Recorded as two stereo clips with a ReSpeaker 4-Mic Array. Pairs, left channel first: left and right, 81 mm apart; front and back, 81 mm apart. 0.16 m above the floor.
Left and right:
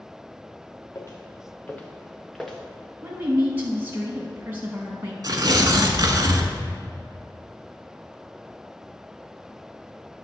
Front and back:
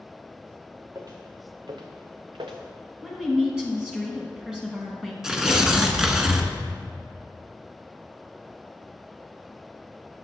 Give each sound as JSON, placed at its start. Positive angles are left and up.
{"t": 0.9, "sound": "footsteps", "azimuth_deg": 135, "distance_m": 1.1}
{"t": 3.0, "sound": "a woman speaking", "azimuth_deg": -115, "distance_m": 1.1}
{"t": 5.2, "sound": "tearing paper", "azimuth_deg": -100, "distance_m": 0.8}